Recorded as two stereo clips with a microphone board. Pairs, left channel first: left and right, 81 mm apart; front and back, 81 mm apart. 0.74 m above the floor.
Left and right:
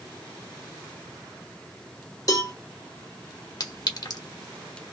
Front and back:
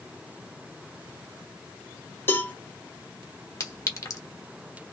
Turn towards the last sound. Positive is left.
turn(degrees=50)